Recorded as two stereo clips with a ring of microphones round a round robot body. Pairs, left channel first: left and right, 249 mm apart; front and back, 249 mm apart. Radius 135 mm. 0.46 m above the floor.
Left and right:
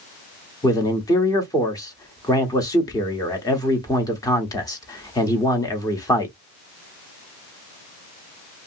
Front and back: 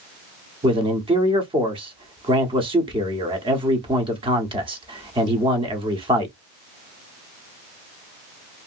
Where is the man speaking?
145° left, 1.0 m.